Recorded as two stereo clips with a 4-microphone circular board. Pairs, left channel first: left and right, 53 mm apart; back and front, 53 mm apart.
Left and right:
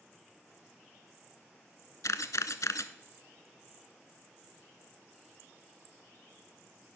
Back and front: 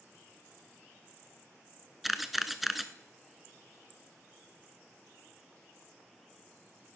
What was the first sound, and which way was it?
A camera shutter, 85° left.